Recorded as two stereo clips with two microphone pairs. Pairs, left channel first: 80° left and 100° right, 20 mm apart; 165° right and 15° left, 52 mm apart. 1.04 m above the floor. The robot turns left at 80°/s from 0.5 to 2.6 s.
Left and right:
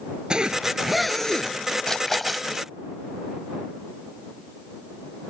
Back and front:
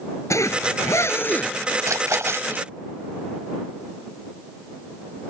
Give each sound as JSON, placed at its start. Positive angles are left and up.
{"t": 0.3, "sound": "a zipper", "azimuth_deg": -150}
{"t": 1.9, "sound": "a splash", "azimuth_deg": 20}